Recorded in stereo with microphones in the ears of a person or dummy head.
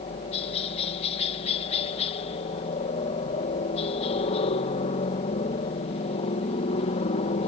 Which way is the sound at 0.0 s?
35° left (ahead or behind).